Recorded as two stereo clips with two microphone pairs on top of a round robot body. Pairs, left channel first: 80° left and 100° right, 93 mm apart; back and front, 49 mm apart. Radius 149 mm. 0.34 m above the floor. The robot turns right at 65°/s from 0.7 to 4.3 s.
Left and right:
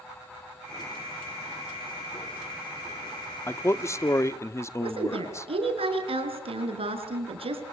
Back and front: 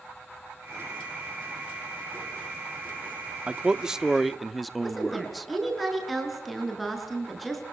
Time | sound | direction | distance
3.5 | a man speaking | 45° left | 1.0 m
4.8 | a woman speaking | 90° right | 6.5 m